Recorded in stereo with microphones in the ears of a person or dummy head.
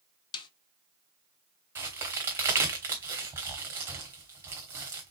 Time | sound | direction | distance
0.3 | a snare drum | 25° left (ahead or behind) | 0.7 m
1.8 | a crack | 10° right (ahead or behind) | 1.2 m